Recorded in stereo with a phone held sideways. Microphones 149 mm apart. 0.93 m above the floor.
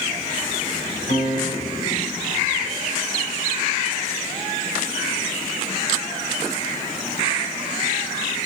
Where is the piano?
75° left (ahead or behind), 6 m.